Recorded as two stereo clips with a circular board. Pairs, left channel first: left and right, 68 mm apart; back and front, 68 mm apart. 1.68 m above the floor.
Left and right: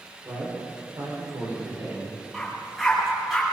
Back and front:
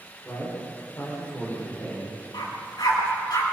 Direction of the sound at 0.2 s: 125° right.